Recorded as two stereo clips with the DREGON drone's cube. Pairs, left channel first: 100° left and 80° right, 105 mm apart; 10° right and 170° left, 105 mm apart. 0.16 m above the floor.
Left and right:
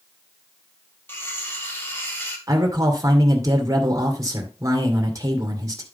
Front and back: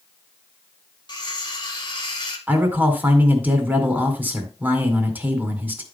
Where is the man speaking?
120° right, 2 m.